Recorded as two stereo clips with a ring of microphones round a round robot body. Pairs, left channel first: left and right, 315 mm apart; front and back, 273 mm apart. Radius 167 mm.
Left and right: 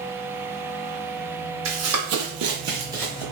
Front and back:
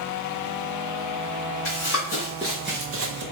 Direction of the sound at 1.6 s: 50° right.